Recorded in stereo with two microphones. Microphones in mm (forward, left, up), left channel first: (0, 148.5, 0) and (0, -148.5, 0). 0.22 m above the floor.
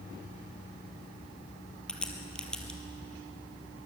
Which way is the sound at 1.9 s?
5° left (ahead or behind).